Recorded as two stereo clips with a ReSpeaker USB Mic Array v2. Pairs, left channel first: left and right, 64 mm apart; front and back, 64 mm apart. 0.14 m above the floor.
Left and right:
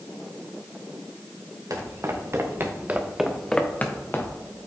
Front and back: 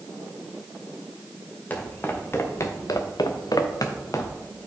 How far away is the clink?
No clink in this recording.